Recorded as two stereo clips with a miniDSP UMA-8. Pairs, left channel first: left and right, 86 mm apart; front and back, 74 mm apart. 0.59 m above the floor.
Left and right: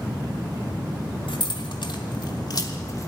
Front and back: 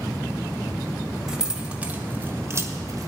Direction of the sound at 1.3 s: 95° left.